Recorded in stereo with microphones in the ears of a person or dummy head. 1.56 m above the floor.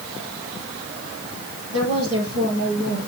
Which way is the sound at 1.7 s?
85° right.